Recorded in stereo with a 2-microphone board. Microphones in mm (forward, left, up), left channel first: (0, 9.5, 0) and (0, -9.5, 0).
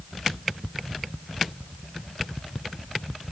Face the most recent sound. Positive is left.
No sound to turn to.